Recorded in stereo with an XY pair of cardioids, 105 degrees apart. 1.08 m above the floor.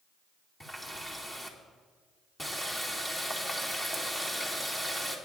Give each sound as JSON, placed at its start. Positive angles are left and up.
{"t": 0.6, "sound": "a running tap", "azimuth_deg": 15, "distance_m": 2.0}